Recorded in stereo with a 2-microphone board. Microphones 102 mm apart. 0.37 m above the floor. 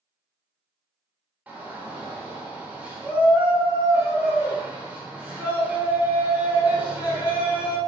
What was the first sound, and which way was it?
A shout, 15° right (ahead or behind).